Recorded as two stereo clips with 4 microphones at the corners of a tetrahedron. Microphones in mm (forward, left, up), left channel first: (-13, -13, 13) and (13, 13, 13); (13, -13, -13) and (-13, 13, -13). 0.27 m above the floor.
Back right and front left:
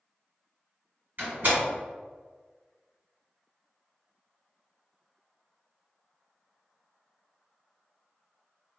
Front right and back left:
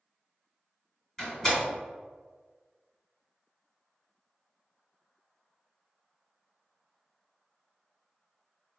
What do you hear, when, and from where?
1.2 s a door slam: 30° left, 1.9 m